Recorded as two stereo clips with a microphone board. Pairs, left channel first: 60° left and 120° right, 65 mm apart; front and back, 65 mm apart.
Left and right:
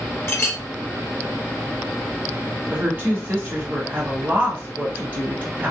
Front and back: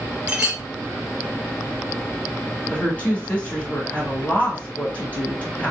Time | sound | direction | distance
0.3 | a clink | 105° left | 2 m
2.7 | a woman speaking | 65° right | 2.5 m